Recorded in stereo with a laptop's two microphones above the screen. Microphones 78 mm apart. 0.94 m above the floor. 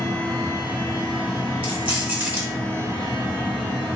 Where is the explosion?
No explosion in this recording.